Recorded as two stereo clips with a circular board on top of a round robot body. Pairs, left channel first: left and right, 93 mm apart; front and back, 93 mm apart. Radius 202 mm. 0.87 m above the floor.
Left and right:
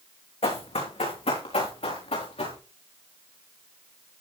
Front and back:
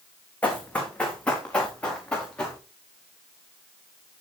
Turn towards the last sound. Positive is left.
turn(degrees=80)